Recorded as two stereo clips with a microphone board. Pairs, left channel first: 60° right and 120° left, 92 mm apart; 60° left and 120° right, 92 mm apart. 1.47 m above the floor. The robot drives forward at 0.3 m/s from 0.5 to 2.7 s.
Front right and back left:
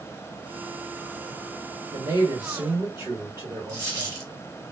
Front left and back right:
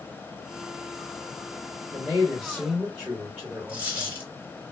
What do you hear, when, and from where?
1.9 s a man speaking: 160° left, 1.4 m; by 4.2 s 165° left, 1.6 m
3.7 s a dropped coin: 170° left, 2.5 m